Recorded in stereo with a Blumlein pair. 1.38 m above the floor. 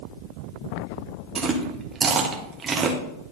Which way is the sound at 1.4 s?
20° right.